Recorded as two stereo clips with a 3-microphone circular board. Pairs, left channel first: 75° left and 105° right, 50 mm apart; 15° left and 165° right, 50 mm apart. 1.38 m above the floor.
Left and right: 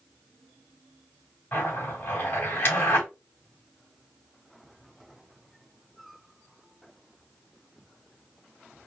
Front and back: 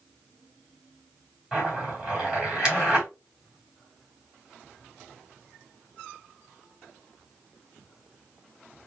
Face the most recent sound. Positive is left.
turn(degrees=120)